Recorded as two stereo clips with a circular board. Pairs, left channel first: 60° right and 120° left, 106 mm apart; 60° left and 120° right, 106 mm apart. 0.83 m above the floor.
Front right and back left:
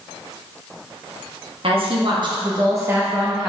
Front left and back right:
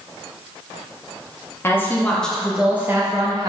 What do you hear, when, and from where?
1.6 s a woman speaking: 125° left, 1.3 m; by 3.5 s 150° right, 1.0 m